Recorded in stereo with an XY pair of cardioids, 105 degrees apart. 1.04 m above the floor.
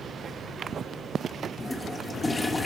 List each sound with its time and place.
1.6 s a toilet flushing: 15° left, 0.9 m